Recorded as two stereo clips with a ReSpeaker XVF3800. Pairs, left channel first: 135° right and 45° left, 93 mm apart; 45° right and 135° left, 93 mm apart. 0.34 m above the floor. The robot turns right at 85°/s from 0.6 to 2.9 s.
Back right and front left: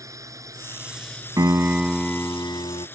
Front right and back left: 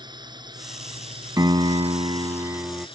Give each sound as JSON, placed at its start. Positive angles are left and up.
{"t": 0.0, "sound": "a drone", "azimuth_deg": 100}
{"t": 1.4, "sound": "a piano", "azimuth_deg": 90}